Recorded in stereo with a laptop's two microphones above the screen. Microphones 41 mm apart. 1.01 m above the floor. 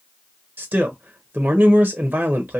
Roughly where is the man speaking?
Right.